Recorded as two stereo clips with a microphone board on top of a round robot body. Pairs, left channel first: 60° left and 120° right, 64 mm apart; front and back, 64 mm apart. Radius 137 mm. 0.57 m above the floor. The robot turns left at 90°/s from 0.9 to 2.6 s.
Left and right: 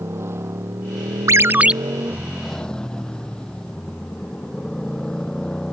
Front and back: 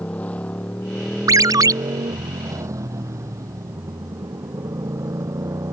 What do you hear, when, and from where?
0.0 s a motorcycle: 70° right; by 5.7 s 140° left
1.3 s a ringtone: 155° right; by 1.7 s 165° left